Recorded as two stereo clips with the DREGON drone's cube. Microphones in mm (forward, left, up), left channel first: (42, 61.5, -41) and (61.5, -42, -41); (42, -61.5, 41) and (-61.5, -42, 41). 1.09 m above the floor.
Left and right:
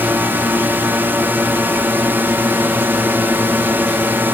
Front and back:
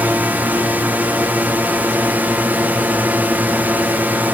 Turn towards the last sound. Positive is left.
turn(degrees=-130)